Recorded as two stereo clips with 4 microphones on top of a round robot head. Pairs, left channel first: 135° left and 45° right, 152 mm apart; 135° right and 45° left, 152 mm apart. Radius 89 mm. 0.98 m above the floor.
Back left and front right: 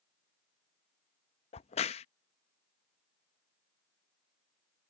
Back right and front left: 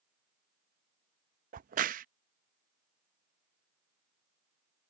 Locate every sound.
1.5 s a crack: 80° left